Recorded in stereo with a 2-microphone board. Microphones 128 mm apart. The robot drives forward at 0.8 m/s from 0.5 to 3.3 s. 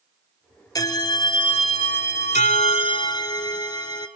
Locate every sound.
0.8 s a bell: 30° left (ahead or behind), 1.3 m; by 4.1 s 35° left (ahead or behind), 1.1 m